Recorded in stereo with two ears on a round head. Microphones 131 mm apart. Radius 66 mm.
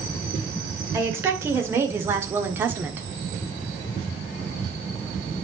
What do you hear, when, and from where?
0.9 s a woman speaking: 20° right (ahead or behind), 2.5 m; by 3.1 s 15° right (ahead or behind), 1.2 m